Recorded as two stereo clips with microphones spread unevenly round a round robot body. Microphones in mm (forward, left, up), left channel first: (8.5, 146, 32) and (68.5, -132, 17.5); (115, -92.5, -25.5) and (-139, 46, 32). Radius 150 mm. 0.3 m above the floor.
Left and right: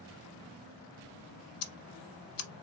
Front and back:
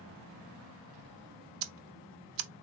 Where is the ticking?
145° left, 1.0 m.